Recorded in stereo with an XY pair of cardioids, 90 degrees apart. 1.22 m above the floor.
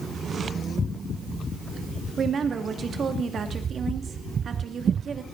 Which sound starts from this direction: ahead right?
A woman speaking, at 2.2 s.